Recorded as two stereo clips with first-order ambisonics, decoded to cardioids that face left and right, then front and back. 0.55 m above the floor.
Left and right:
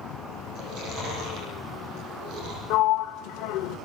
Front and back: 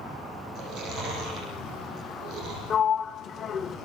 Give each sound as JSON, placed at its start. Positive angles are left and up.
{"t": 0.6, "sound": "chewing", "azimuth_deg": -135, "distance_m": 8.5}
{"t": 2.7, "sound": "a sliding door", "azimuth_deg": 65, "distance_m": 0.8}